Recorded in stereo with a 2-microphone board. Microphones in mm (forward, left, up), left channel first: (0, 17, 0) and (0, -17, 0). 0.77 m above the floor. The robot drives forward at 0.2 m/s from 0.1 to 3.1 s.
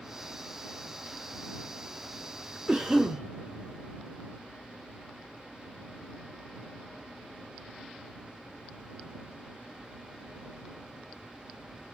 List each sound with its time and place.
2.7 s a cough: 25° right (ahead or behind), 0.6 m